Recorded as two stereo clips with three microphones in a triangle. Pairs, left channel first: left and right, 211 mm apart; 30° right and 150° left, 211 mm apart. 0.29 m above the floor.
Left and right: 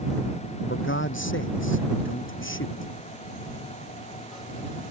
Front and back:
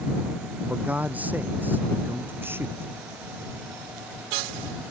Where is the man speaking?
65° left; by 2.9 s 70° left.